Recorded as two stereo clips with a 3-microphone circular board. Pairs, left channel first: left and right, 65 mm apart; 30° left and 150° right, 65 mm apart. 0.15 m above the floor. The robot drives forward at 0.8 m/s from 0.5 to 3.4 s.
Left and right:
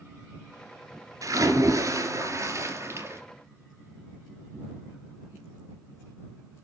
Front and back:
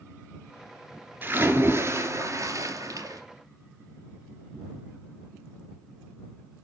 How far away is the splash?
About 2 m.